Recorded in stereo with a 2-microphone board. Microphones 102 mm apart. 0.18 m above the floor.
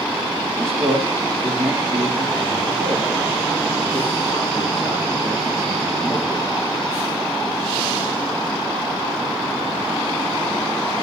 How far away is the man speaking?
About 6.5 m.